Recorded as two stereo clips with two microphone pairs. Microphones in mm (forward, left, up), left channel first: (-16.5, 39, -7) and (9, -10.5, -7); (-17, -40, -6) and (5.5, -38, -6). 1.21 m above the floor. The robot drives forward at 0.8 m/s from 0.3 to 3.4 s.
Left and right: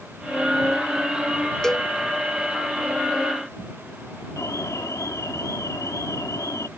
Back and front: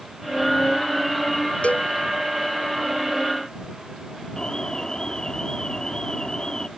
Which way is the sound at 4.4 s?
125° left.